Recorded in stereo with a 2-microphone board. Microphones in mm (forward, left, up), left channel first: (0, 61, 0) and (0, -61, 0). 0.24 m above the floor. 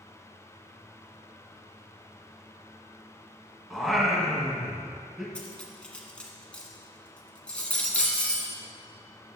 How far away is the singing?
About 1.8 m.